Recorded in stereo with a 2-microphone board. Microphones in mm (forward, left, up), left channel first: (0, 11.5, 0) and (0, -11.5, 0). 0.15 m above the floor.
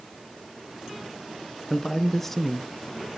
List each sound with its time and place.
1.7 s a man speaking: 20° left (ahead or behind), 1.4 m; by 3.1 s 10° right (ahead or behind), 1.0 m